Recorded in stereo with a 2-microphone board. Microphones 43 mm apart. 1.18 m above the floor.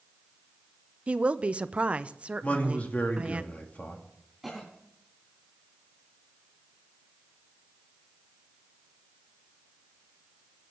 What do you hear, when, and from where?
1.1 s a woman speaking: 30° right (ahead or behind), 0.5 m
2.4 s a man speaking: 35° left (ahead or behind), 2 m
4.4 s a cough: centre (ahead or behind), 3 m